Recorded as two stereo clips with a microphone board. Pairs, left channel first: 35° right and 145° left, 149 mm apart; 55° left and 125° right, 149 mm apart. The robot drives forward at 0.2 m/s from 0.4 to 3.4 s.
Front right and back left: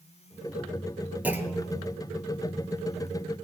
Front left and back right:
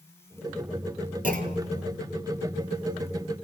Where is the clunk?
135° right, 1.1 m; by 1.8 s 140° right, 1.1 m.